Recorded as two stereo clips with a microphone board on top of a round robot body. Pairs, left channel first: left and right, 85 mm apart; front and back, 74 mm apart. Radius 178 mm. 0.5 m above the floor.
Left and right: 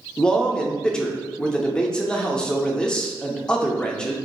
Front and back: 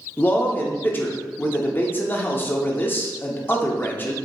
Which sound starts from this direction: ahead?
A man speaking, at 0.2 s.